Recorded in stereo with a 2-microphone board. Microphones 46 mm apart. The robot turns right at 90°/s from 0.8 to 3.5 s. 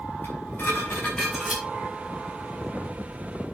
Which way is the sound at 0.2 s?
130° left.